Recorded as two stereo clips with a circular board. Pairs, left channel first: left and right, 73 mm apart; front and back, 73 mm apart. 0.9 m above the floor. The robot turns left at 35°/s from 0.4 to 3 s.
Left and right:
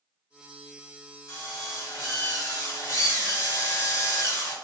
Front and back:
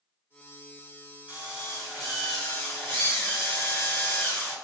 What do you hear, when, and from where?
1.3 s a drill: 120° left, 1.5 m; by 4.5 s 60° left, 1.5 m